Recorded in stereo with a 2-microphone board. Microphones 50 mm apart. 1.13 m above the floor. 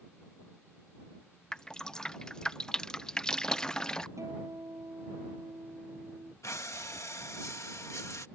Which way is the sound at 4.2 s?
85° right.